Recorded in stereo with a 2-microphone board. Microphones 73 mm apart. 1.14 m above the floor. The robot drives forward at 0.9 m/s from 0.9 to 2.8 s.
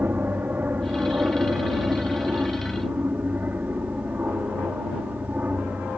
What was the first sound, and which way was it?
An aircraft, 25° right (ahead or behind).